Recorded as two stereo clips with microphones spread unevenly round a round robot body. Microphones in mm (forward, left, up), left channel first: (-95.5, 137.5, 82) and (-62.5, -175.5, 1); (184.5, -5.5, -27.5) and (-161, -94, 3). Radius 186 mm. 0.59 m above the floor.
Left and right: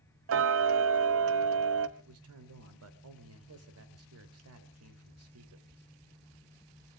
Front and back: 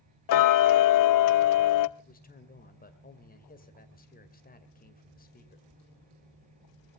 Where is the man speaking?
50° right, 2.5 m.